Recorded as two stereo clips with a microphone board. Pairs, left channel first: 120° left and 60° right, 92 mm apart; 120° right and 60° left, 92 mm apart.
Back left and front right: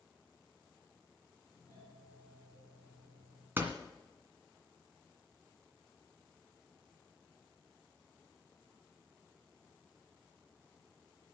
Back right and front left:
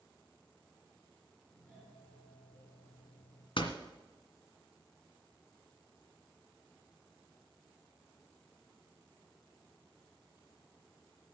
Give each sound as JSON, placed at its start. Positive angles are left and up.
{"t": 1.5, "sound": "a doorbell", "azimuth_deg": 165, "distance_m": 5.5}
{"t": 3.6, "sound": "a door slam", "azimuth_deg": -125, "distance_m": 1.9}